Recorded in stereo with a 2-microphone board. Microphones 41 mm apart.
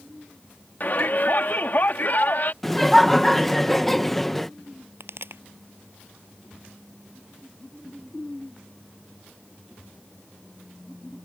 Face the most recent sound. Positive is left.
turn(degrees=-70)  # may be behind; listen again after turning